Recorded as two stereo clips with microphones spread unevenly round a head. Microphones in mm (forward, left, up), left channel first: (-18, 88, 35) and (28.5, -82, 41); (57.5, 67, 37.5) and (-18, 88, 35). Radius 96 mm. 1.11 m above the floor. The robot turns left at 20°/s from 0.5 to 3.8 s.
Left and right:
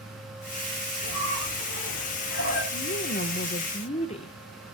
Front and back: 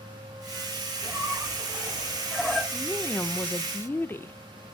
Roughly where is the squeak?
Left.